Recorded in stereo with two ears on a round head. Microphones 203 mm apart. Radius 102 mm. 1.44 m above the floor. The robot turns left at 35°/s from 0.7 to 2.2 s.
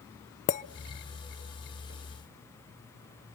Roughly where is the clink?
Left.